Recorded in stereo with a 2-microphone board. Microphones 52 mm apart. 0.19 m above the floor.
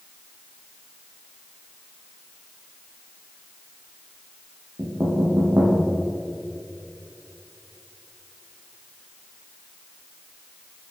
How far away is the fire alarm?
I don't hear a fire alarm.